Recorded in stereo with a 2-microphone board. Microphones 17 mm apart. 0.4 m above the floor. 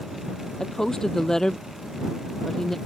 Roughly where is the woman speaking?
Left.